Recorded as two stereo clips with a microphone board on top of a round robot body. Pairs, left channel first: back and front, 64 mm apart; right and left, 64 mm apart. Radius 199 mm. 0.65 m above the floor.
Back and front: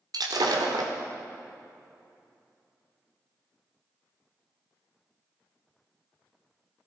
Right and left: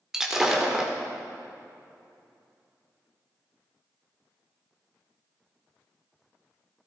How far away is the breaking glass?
About 1.6 m.